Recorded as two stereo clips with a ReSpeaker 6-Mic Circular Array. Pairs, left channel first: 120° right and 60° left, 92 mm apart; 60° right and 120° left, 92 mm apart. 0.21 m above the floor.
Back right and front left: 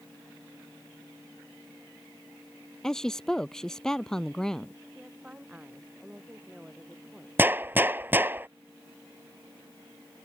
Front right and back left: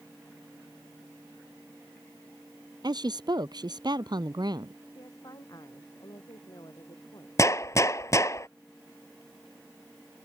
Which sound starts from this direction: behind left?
A woman speaking, at 2.8 s.